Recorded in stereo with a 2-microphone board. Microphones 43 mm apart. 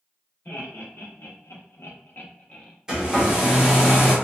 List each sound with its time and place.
0.5 s laughter: 50° left (ahead or behind), 1.1 m; by 2.7 s 25° left (ahead or behind), 0.9 m
2.9 s a hair dryer: 15° right (ahead or behind), 0.8 m